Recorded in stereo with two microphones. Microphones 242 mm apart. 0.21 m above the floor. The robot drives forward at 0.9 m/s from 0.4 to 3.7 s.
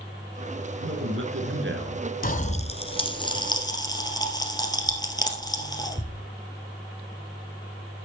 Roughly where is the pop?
Left.